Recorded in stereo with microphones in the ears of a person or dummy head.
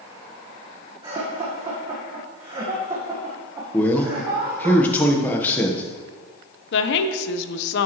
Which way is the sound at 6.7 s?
70° left (ahead or behind).